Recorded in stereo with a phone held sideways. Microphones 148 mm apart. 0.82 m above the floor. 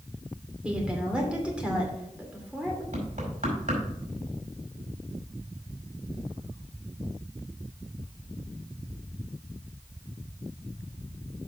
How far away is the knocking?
About 4.5 m.